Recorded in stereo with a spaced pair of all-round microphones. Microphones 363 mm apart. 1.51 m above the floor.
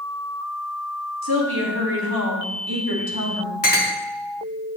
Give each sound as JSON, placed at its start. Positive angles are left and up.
{"t": 1.2, "sound": "a woman speaking", "side_deg": -85, "distance_m": 2.5}
{"t": 3.6, "sound": "a clink", "side_deg": 65, "distance_m": 1.2}